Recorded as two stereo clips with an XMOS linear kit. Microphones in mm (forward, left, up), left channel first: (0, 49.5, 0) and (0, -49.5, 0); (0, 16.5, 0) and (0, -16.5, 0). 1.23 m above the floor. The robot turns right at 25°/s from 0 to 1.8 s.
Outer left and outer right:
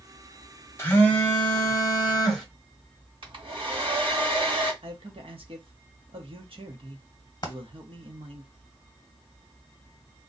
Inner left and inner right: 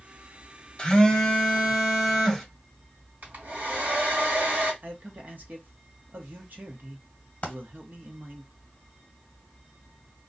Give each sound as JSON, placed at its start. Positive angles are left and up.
{"t": 0.8, "sound": "a phone buzzing", "side_deg": 25, "distance_m": 1.1}
{"t": 3.2, "sound": "a hair dryer", "side_deg": -60, "distance_m": 1.5}
{"t": 4.8, "sound": "a man speaking", "side_deg": -65, "distance_m": 0.9}
{"t": 7.4, "sound": "a dropped coin", "side_deg": 40, "distance_m": 1.1}